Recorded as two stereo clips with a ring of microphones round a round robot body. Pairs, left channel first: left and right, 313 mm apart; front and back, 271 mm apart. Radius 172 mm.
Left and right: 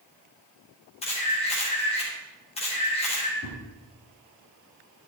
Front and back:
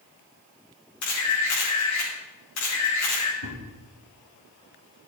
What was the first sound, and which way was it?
A camera shutter, 20° left.